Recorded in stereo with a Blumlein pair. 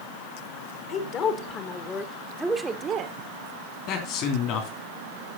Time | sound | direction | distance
0.9 | a woman speaking | 35° left | 2 m
3.9 | a man speaking | 40° left | 3 m